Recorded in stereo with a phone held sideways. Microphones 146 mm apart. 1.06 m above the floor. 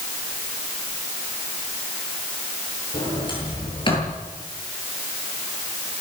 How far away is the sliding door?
About 8.5 m.